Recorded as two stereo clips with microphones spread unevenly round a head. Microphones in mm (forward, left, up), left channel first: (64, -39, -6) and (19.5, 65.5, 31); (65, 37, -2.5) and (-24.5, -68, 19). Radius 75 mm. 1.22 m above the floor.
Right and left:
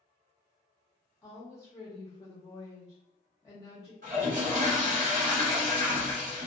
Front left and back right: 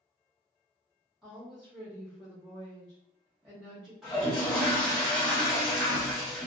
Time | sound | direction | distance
1.2 | a woman speaking | 35° right | 0.7 m
4.0 | a toilet flushing | 135° left | 0.9 m